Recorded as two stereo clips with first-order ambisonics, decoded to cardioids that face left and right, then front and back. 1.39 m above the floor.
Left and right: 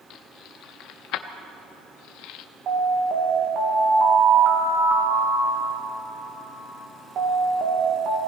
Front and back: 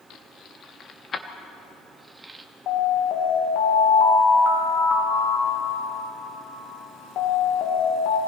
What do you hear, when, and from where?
0.1 s keys jangling: 45° left, 1.5 m; by 2.5 s 105° left, 1.1 m
2.7 s an alarm: 40° right, 3 m